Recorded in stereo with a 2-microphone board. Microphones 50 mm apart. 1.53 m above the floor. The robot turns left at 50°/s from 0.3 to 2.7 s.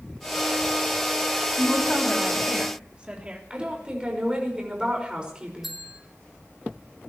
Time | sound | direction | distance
1.6 | a woman speaking | 35° left | 3 m
3.5 | a woman speaking | 20° right (ahead or behind) | 5.5 m
5.6 | a bell | 5° right (ahead or behind) | 3 m